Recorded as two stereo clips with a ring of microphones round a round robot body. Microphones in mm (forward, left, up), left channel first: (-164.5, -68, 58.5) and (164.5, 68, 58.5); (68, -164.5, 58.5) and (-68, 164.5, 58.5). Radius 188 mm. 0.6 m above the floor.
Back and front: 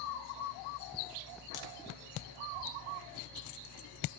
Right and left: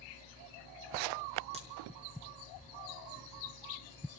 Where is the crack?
175° right, 1.5 m.